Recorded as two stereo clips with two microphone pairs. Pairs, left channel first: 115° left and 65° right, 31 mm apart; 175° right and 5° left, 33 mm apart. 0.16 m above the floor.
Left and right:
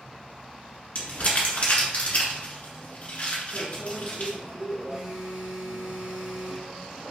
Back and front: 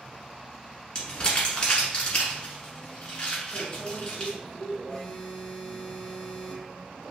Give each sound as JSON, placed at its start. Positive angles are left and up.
{"t": 0.9, "sound": "crumpling", "azimuth_deg": 135, "distance_m": 1.4}
{"t": 3.5, "sound": "a microwave", "azimuth_deg": -55, "distance_m": 1.5}
{"t": 4.9, "sound": "a phone buzzing", "azimuth_deg": -110, "distance_m": 1.2}